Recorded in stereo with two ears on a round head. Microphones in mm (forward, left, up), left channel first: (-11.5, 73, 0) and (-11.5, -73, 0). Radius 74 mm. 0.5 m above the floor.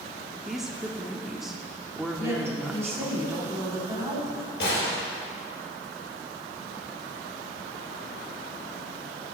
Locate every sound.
0.5 s a woman speaking: centre (ahead or behind), 0.8 m
2.2 s a woman speaking: 20° right (ahead or behind), 3 m
4.6 s a gunshot: 80° left, 4 m